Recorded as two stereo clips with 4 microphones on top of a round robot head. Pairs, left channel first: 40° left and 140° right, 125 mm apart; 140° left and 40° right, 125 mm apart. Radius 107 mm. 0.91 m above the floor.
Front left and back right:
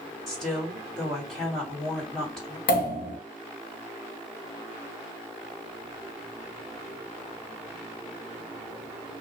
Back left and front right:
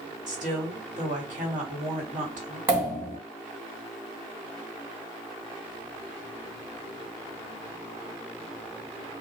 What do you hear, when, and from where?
0.3 s a woman speaking: 45° right, 2.0 m
2.7 s a pop: 30° left, 1.2 m